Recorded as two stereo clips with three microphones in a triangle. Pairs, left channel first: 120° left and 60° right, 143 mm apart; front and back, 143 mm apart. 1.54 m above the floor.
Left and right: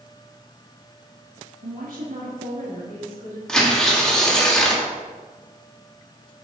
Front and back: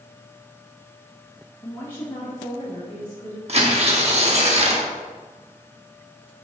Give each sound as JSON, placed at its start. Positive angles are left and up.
{"t": 1.6, "sound": "a woman speaking", "azimuth_deg": -65, "distance_m": 1.2}
{"t": 3.5, "sound": "tearing paper", "azimuth_deg": -155, "distance_m": 1.4}